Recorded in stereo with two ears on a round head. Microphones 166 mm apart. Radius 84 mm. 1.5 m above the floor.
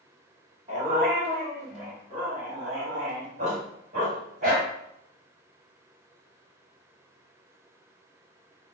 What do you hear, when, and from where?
0.7 s a dog barking: 30° right (ahead or behind), 1.2 m; by 4.7 s 45° right (ahead or behind), 2.5 m